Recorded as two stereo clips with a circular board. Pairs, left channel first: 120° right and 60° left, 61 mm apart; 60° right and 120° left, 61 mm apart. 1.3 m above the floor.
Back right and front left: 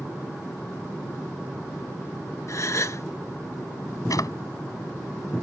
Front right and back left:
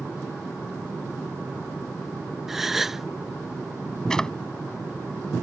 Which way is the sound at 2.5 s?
155° right.